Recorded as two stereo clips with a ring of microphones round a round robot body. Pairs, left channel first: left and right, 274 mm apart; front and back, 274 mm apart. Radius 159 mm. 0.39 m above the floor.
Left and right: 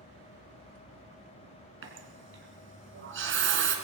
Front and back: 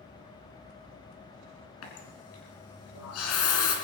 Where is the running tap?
45° right, 3 m.